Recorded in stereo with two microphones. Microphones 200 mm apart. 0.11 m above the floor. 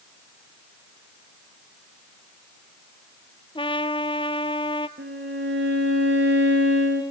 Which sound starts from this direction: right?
A violin, at 5.0 s.